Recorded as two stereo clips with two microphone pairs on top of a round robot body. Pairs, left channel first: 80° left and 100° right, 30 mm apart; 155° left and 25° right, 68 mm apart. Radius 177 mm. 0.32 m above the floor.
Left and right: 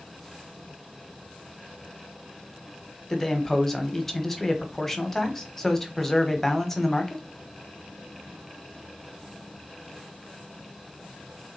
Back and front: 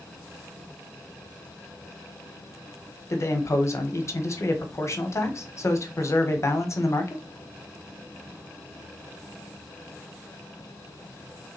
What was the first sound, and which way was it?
A man speaking, 150° left.